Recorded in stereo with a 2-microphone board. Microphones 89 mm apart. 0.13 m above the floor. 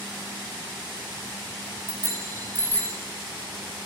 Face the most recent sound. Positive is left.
turn(degrees=15)  # may be behind; listen again after turning